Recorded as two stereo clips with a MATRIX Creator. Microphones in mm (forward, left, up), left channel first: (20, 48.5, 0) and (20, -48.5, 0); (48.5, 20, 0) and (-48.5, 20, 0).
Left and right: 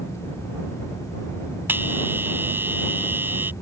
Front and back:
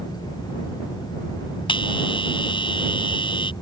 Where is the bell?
25° right.